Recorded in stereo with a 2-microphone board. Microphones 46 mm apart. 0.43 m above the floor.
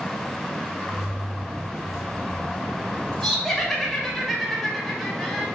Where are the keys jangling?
10° right (ahead or behind), 2 m; by 4.2 s 25° left (ahead or behind), 3 m.